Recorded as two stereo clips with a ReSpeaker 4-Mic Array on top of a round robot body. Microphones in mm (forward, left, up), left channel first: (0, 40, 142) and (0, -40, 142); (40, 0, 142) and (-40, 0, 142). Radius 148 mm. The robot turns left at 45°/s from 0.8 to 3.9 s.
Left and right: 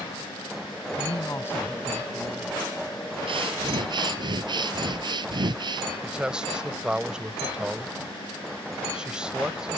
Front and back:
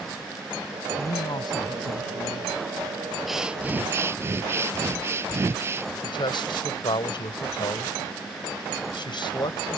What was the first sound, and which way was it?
A woman speaking, 50° left.